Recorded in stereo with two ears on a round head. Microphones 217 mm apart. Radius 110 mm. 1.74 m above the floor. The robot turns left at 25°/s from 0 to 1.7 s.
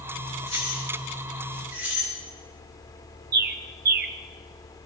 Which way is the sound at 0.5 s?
25° left (ahead or behind).